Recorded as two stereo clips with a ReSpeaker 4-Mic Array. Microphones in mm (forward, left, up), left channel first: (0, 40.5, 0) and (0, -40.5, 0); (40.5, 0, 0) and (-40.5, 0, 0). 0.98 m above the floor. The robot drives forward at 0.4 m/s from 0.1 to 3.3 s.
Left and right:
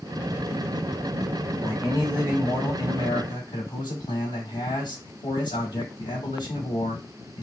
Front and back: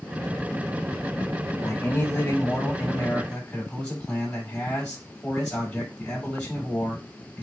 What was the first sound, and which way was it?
A man speaking, 55° left.